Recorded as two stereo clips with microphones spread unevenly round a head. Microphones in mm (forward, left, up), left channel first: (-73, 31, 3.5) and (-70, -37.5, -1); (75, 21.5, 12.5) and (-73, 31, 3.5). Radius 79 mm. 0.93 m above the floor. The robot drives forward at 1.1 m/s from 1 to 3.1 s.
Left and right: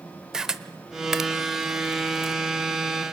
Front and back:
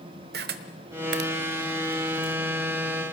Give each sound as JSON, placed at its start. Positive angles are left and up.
{"t": 0.3, "sound": "a camera shutter", "azimuth_deg": -170, "distance_m": 1.0}